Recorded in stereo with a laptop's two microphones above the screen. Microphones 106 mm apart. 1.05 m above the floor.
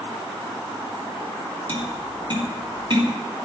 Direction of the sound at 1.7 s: 50° right (ahead or behind).